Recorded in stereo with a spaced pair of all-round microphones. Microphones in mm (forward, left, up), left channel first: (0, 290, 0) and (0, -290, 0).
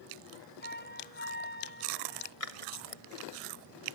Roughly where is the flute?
Centre.